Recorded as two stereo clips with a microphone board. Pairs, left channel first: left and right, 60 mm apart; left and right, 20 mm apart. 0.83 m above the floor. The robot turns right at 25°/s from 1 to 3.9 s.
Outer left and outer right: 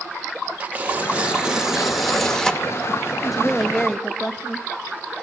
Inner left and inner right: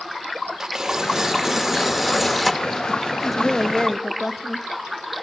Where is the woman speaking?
Centre (ahead or behind), 0.8 m; by 4.6 s 10° left (ahead or behind), 0.8 m.